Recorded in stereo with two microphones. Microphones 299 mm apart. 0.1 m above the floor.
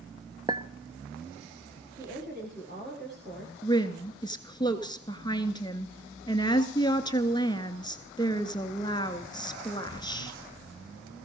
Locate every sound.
0.5 s a clink: 15° right (ahead or behind), 0.9 m
2.0 s a woman speaking: 35° right (ahead or behind), 9 m
3.6 s a woman speaking: 15° left (ahead or behind), 1.1 m